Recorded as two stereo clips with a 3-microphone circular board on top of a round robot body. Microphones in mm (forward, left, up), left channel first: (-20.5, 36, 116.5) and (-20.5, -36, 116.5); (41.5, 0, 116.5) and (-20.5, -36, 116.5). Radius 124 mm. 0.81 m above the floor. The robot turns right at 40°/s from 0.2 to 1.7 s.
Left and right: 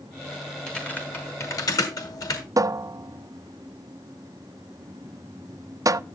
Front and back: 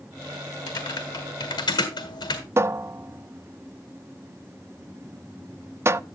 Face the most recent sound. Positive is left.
turn(degrees=-110)